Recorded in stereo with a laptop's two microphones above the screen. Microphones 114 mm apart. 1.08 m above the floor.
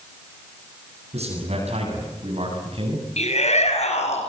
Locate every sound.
1.1 s a man speaking: 70° right (ahead or behind), 9 m; by 3.1 s 55° right (ahead or behind), 7.5 m
3.2 s a shout: 75° left (ahead or behind), 6.5 m